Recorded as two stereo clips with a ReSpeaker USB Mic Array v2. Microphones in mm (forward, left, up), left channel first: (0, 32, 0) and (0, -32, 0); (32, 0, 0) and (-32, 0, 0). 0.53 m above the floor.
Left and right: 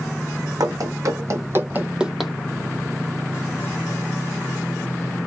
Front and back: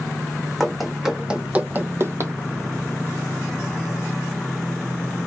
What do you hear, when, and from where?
0.6 s running footsteps: 85° right, 1.2 m; by 2.3 s 175° left, 0.7 m